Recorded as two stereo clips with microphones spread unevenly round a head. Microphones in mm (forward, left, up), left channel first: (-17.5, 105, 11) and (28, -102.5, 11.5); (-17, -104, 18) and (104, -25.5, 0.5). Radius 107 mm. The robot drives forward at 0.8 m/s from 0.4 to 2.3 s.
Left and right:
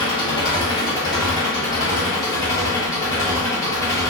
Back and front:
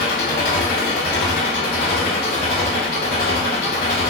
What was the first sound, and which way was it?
An engine running, 175° left.